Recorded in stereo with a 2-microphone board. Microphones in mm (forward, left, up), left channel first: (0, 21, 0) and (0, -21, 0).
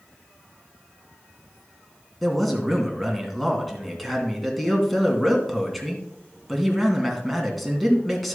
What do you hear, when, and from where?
2.2 s a man speaking: centre (ahead or behind), 2.5 m